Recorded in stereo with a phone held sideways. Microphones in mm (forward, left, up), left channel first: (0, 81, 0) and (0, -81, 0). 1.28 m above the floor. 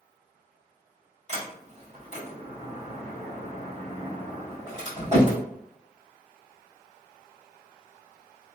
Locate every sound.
1.3 s a sliding door: 40° right (ahead or behind), 1.7 m